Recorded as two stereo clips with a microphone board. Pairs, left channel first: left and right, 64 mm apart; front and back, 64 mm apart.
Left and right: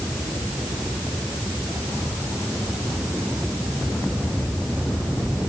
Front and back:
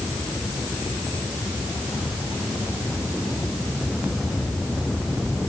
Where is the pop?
I don't hear a pop.